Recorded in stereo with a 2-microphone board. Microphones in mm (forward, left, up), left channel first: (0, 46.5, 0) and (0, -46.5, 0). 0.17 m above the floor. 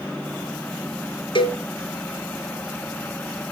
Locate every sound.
1.4 s a cowbell: 60° left (ahead or behind), 2.5 m